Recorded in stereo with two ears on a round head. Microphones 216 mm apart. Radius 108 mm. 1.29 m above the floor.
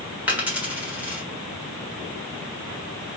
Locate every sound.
0.3 s a dropped coin: 5° right (ahead or behind), 1.6 m